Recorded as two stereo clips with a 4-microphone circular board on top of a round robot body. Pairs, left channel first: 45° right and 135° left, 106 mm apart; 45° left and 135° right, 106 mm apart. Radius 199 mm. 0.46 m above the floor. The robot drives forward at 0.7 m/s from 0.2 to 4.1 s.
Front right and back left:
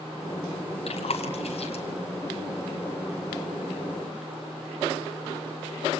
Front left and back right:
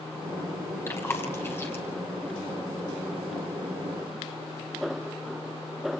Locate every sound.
0.9 s chewing: 20° right, 4 m; by 1.8 s 25° right, 3.5 m